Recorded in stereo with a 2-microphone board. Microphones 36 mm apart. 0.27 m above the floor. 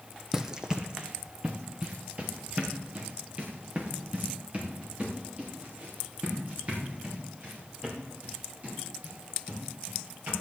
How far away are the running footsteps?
About 0.7 m.